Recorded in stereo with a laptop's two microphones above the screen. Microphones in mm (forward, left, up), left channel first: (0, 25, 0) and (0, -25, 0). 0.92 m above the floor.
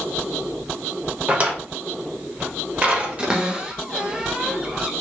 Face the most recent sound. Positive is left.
turn(degrees=-20)  # may be behind; listen again after turning